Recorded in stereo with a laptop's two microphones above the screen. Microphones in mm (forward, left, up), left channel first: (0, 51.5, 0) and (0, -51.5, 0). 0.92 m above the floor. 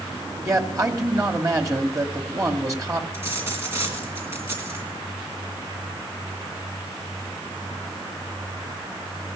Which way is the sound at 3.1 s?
25° right (ahead or behind).